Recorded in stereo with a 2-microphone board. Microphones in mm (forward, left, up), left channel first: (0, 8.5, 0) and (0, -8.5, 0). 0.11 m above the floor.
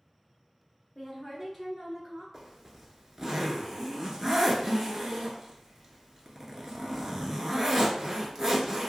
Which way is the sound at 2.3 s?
35° right (ahead or behind).